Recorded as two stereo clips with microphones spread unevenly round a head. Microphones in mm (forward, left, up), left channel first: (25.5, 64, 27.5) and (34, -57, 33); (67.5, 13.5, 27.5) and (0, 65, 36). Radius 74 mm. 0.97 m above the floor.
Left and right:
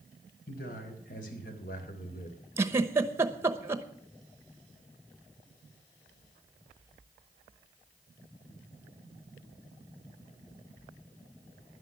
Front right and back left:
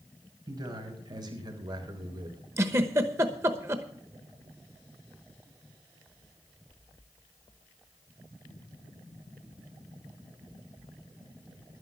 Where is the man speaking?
105° left, 5 m; by 2.4 s 115° left, 2.5 m.